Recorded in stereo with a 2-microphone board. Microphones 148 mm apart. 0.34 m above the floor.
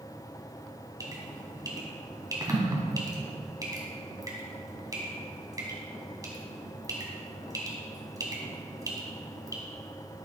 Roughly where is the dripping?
Right.